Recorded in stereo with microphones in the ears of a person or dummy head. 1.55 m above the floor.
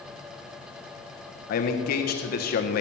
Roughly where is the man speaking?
Left.